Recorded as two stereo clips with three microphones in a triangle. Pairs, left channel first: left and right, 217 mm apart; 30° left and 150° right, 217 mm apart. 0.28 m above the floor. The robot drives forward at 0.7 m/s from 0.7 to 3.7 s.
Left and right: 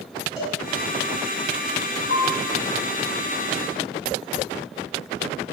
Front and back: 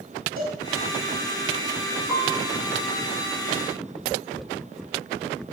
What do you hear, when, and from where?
0.4 s a cowbell: 175° right, 3 m
2.1 s a piano: 60° right, 4 m; by 2.5 s 65° right, 3.5 m